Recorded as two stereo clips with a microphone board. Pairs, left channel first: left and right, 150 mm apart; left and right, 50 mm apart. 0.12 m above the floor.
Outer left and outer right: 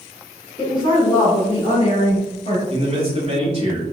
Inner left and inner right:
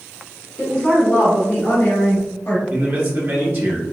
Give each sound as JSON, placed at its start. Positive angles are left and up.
{"t": 0.6, "sound": "a woman speaking", "side_deg": 25, "distance_m": 1.9}
{"t": 2.7, "sound": "a man speaking", "side_deg": -40, "distance_m": 1.8}